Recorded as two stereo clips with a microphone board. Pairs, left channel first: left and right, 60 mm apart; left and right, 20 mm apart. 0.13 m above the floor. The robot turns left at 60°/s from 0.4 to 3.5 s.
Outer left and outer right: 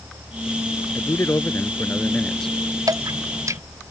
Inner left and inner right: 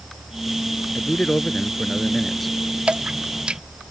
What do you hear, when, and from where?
0.9 s a man speaking: 100° left; by 2.5 s 5° left
2.9 s dripping: 80° right; by 3.6 s 60° right (ahead or behind)